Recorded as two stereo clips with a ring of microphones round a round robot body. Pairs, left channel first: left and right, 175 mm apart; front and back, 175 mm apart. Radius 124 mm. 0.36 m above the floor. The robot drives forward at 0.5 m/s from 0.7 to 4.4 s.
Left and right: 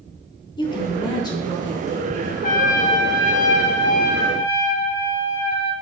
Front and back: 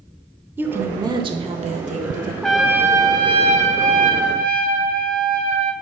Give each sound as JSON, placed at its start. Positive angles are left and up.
{"t": 0.6, "sound": "a woman speaking", "azimuth_deg": 115, "distance_m": 0.9}
{"t": 2.4, "sound": "a trumpet", "azimuth_deg": 85, "distance_m": 0.7}